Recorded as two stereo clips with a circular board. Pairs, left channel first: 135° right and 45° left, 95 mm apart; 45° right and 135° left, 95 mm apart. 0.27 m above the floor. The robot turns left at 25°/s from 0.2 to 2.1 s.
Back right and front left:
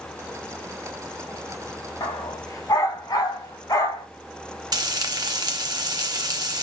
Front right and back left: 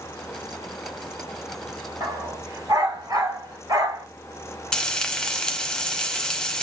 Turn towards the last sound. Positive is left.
turn(degrees=35)